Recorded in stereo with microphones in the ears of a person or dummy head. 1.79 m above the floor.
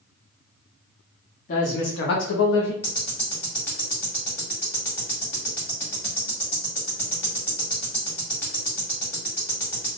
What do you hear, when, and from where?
1.5 s a woman speaking: 35° left (ahead or behind), 0.8 m; by 2.7 s 70° left (ahead or behind), 1.1 m
2.8 s ticking: 15° left (ahead or behind), 1.6 m